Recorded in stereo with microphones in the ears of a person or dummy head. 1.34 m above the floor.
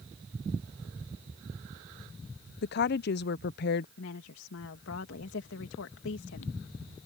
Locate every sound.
2.6 s a woman speaking: 55° left (ahead or behind)
4.0 s a woman speaking: 70° left (ahead or behind)